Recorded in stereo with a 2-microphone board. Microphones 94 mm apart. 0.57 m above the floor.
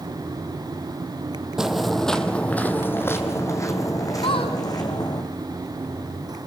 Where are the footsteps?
5° right (ahead or behind), 1.2 m; by 5.2 s 50° left (ahead or behind), 2.5 m.